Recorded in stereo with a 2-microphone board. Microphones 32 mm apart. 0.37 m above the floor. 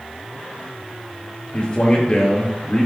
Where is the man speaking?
35° left (ahead or behind), 5.5 m.